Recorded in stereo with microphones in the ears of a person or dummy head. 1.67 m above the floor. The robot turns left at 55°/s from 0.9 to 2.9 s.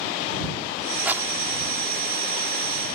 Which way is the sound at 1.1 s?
5° right (ahead or behind).